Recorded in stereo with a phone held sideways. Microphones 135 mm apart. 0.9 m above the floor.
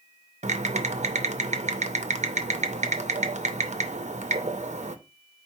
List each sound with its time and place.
0.4 s typing on a keyboard: 60° right (ahead or behind), 0.5 m